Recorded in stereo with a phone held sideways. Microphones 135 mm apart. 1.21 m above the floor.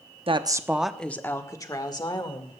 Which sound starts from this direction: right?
A woman speaking, at 0.3 s.